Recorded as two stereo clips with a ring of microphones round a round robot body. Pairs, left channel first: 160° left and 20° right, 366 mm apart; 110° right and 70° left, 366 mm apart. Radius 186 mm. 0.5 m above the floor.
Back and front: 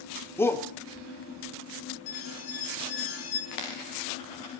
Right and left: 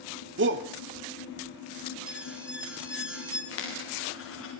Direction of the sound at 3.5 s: 170° right.